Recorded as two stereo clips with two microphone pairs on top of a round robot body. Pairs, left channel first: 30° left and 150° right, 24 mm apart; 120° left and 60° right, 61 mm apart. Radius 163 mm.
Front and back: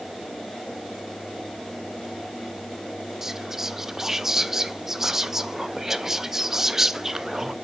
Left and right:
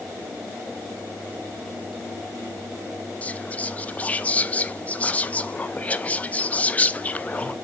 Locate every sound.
3.2 s whispering: 160° left, 0.8 m